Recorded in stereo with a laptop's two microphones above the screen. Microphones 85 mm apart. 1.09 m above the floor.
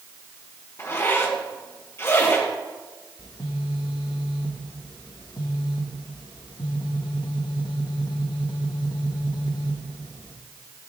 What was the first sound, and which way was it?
A zipper, 30° left (ahead or behind).